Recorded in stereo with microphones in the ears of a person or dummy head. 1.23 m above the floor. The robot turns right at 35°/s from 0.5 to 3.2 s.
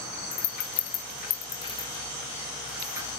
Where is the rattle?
60° left (ahead or behind), 0.9 m; by 3.1 s 20° right (ahead or behind), 0.9 m.